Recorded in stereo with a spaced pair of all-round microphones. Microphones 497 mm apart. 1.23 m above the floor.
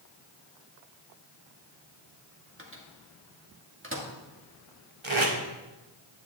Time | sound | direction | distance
2.6 | a microwave | 25° right (ahead or behind) | 1.7 m
5.0 | tape being pulled | 65° right (ahead or behind) | 2.0 m